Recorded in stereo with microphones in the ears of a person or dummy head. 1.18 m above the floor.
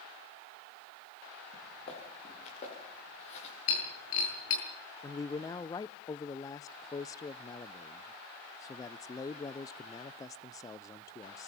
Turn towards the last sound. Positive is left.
turn(degrees=20)  # may be behind; listen again after turning